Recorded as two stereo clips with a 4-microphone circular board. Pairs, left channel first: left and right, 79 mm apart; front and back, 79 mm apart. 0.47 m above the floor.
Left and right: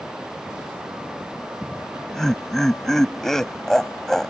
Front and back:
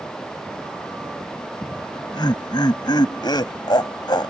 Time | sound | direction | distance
1.6 | laughter | 5° left | ?